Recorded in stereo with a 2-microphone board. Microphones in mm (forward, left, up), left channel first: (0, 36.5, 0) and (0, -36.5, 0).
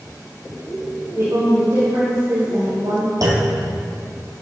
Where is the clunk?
65° right (ahead or behind), 2.5 m.